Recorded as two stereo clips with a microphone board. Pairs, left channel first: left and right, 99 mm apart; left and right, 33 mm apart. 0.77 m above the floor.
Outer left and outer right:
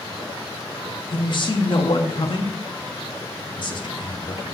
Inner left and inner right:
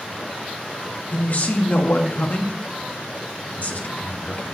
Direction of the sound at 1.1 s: 50° left (ahead or behind).